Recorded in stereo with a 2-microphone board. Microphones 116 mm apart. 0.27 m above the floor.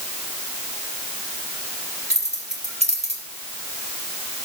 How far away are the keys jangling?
About 3.5 m.